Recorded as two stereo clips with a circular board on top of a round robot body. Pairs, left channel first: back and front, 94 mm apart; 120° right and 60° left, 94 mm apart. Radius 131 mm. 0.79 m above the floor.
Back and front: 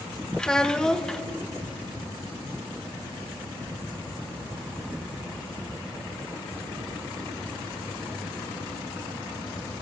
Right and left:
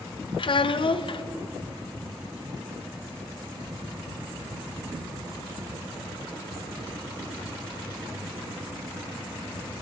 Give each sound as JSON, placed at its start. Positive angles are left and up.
{"t": 0.4, "sound": "a child speaking", "azimuth_deg": -100, "distance_m": 0.6}